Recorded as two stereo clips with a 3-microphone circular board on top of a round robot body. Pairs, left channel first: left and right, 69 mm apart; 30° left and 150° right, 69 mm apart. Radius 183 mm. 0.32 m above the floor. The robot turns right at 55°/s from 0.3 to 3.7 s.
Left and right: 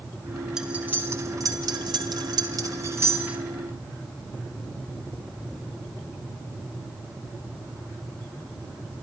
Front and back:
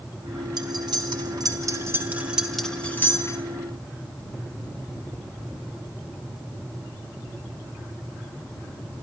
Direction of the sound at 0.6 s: 170° right.